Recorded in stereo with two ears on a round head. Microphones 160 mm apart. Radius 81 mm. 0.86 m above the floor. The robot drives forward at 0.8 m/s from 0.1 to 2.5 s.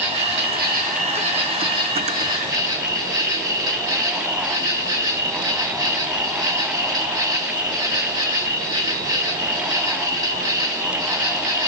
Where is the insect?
65° right (ahead or behind), 0.9 m; by 11.7 s 20° right (ahead or behind), 2 m.